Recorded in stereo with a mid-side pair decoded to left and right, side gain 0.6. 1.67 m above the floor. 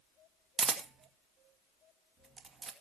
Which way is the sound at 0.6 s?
30° right.